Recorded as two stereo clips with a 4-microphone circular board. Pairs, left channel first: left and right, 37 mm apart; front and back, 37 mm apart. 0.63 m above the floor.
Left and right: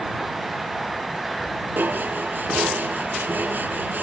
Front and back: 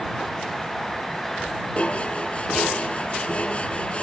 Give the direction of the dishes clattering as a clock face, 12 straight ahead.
2 o'clock.